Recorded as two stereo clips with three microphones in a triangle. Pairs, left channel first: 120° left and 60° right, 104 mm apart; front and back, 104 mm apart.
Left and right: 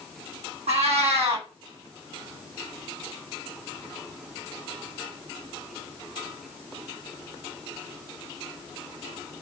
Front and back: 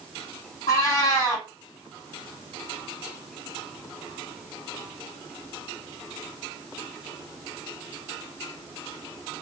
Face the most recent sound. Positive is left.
turn(degrees=-55)